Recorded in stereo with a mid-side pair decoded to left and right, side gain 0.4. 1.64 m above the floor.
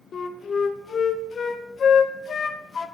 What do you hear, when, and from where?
0.1 s a flute: 55° left, 1.1 m